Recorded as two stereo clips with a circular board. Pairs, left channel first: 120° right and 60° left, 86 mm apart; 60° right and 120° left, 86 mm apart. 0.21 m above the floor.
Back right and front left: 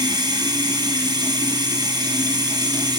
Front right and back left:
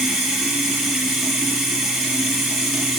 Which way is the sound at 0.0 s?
30° left.